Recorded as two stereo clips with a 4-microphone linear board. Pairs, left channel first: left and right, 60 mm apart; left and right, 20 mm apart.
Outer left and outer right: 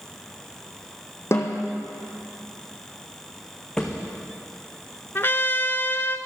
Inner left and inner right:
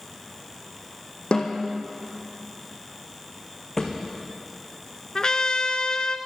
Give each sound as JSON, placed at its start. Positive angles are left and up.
{"t": 1.3, "sound": "a snare drum", "side_deg": 45, "distance_m": 2.0}
{"t": 3.8, "sound": "a thud", "side_deg": 10, "distance_m": 2.5}
{"t": 5.2, "sound": "a trumpet", "side_deg": 40, "distance_m": 0.7}